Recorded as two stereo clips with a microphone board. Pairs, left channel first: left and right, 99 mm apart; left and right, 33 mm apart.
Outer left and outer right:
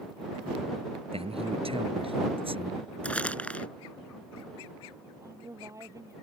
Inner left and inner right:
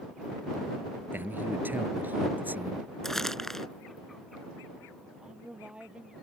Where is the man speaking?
75° right (ahead or behind); by 2.9 s 65° right (ahead or behind).